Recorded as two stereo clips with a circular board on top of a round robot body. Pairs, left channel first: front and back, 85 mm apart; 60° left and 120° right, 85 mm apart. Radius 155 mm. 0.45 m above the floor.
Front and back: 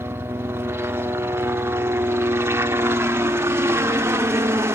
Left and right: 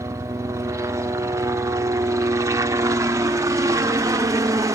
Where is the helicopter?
140° right.